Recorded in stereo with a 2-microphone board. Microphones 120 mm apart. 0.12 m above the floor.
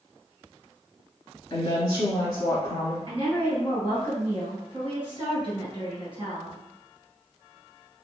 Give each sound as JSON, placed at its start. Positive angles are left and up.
{"t": 1.5, "sound": "a woman speaking", "side_deg": 35, "distance_m": 1.3}
{"t": 3.1, "sound": "a woman speaking", "side_deg": -40, "distance_m": 1.5}